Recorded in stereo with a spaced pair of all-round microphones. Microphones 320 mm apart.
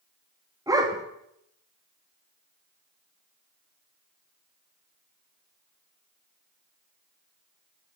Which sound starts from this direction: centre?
A dog barking, at 0.7 s.